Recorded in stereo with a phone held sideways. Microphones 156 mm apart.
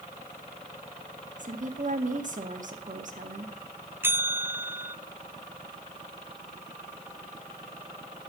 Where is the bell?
15° right (ahead or behind), 0.6 m.